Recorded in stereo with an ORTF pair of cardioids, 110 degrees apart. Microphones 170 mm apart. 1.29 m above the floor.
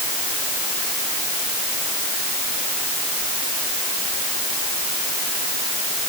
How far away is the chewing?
No chewing in this recording.